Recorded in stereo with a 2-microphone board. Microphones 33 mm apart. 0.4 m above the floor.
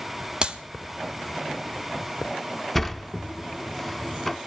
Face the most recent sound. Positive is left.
turn(degrees=5)  # may be behind; listen again after turning